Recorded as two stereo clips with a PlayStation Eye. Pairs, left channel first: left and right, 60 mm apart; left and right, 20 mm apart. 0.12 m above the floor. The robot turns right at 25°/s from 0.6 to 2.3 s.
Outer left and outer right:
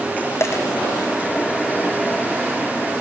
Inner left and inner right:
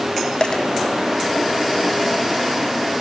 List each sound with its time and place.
0.4 s a dropped coin: 50° left (ahead or behind), 1.9 m; by 0.6 s 45° left (ahead or behind), 1.9 m